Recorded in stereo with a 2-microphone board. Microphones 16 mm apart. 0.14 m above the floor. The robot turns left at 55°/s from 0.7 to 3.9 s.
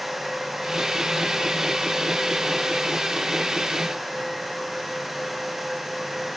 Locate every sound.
Only background noise.